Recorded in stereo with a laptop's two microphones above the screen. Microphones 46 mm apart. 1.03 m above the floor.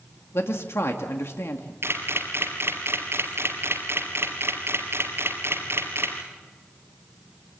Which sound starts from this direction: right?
A camera shutter, at 1.8 s.